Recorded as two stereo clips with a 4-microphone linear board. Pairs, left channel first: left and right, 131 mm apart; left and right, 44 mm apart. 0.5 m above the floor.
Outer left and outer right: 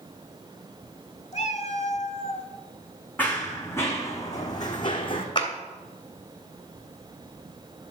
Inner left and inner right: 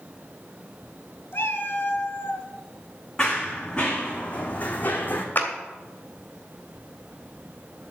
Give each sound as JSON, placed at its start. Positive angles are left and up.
{"t": 1.3, "sound": "a cat meowing", "side_deg": 60, "distance_m": 1.2}
{"t": 3.2, "sound": "running footsteps", "side_deg": 15, "distance_m": 2.5}
{"t": 5.3, "sound": "a clap", "side_deg": 40, "distance_m": 2.0}